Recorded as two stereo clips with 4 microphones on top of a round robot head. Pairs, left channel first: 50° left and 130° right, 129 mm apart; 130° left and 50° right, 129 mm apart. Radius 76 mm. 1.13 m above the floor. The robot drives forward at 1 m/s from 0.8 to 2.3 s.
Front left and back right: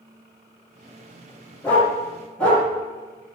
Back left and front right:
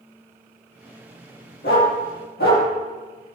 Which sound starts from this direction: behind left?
A dog barking, at 1.6 s.